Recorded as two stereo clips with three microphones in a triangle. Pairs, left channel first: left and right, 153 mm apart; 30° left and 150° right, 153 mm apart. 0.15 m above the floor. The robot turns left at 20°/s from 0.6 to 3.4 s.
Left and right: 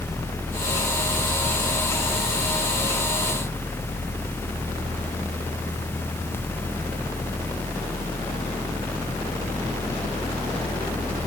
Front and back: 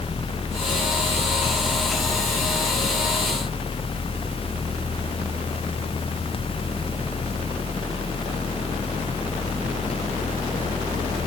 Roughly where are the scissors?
No scissors in this recording.